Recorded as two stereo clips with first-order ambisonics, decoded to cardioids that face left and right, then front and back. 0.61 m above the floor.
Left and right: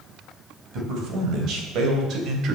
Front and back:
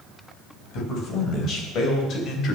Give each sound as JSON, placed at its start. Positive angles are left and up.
{"t": 0.7, "sound": "a man speaking", "azimuth_deg": -50, "distance_m": 3.5}